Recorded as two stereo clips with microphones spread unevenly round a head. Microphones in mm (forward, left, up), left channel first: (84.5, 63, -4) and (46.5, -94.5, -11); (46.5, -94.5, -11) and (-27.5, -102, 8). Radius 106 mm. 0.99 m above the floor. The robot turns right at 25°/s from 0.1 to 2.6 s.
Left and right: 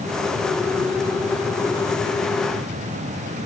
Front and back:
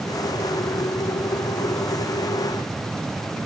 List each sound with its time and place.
Only background noise.